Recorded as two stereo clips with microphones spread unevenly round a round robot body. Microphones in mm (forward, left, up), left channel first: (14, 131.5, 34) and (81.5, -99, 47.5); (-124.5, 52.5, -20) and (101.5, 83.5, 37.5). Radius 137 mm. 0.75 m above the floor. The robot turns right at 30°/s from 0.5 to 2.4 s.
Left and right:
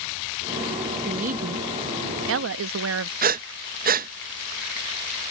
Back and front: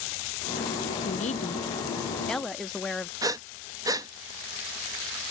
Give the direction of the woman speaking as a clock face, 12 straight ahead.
4 o'clock.